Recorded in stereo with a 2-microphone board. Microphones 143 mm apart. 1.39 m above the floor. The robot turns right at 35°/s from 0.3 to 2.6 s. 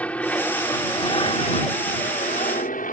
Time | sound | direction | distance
0.0 | an aircraft | 10° left | ?